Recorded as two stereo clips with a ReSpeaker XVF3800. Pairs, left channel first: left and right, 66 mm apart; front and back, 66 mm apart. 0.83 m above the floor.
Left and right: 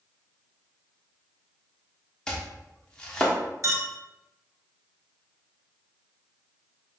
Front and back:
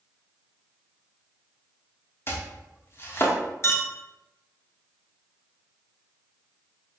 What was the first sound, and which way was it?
Chopping, 15° left.